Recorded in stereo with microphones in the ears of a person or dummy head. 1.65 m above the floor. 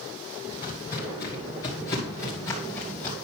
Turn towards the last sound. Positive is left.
turn(degrees=20)  # may be behind; listen again after turning